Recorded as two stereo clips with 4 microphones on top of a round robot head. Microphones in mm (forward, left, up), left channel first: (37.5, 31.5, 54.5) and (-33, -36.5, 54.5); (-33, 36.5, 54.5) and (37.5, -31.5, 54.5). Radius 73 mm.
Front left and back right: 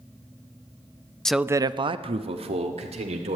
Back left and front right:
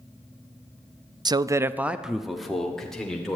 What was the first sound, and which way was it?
A man speaking, 35° right.